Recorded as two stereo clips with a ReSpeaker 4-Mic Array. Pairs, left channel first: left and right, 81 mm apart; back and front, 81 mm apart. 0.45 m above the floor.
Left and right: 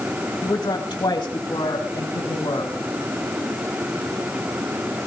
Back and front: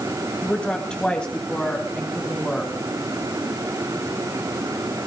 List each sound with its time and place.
0.4 s a woman speaking: 105° left, 2 m; by 2.7 s 100° left, 4.5 m